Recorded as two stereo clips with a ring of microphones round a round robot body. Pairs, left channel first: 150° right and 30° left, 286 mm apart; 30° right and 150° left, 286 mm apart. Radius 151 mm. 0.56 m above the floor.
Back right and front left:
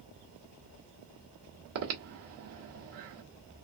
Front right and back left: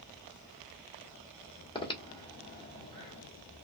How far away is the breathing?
About 1.5 m.